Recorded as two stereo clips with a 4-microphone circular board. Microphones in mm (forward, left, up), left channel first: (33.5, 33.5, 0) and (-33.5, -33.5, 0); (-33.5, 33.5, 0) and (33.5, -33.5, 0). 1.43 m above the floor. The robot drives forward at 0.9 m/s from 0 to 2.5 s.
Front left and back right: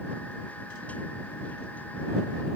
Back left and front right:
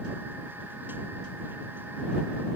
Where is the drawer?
No drawer in this recording.